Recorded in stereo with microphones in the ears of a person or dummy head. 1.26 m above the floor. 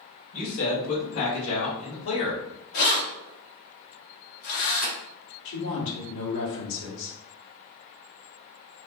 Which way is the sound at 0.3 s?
60° left (ahead or behind).